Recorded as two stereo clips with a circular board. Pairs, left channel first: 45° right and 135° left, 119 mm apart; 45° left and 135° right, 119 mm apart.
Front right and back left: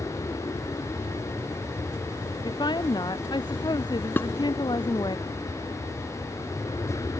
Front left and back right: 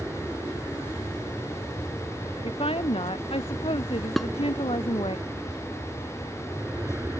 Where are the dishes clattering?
40° right.